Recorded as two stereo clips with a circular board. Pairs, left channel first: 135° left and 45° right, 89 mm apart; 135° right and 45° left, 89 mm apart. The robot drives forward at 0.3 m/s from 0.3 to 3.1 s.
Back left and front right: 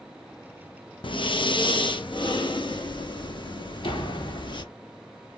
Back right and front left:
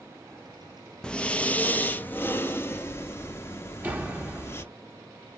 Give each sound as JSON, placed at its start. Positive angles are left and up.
{"t": 1.0, "sound": "breathing", "azimuth_deg": 145, "distance_m": 0.6}
{"t": 3.8, "sound": "a door slam", "azimuth_deg": 115, "distance_m": 1.5}